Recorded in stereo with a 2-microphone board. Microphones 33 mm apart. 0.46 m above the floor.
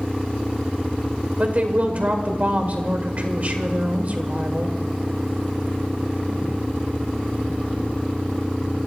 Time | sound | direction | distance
1.4 | a woman speaking | 50° right (ahead or behind) | 1.6 m